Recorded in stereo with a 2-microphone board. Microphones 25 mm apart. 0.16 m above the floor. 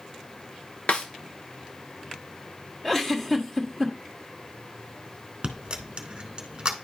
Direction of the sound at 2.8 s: 10° left (ahead or behind).